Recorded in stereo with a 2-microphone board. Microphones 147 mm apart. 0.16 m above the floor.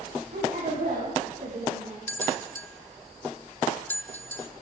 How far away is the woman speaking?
About 8.5 m.